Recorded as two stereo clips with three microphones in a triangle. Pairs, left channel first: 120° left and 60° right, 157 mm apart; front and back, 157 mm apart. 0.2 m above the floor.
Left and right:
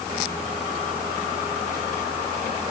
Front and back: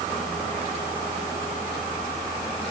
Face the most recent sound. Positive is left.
No sound to turn to.